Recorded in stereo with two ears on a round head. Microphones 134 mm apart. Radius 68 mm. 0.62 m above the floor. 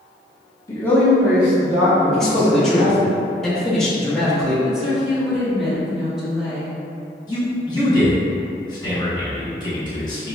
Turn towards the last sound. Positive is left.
turn(degrees=25)  # may be behind; listen again after turning